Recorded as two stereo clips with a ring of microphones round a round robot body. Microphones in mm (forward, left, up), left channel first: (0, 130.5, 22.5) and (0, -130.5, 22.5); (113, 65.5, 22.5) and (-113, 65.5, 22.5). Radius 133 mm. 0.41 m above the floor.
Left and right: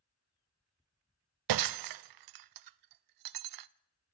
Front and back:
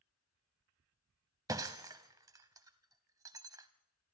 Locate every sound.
1.5 s breaking glass: 100° right, 0.5 m